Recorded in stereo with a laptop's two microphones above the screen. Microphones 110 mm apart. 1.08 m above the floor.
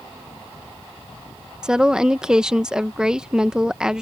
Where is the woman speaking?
5° right (ahead or behind).